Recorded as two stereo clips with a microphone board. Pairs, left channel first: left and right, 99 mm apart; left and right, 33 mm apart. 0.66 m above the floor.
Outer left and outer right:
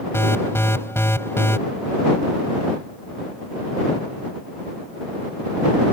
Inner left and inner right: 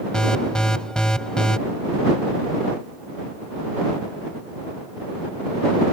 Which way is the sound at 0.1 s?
25° left (ahead or behind).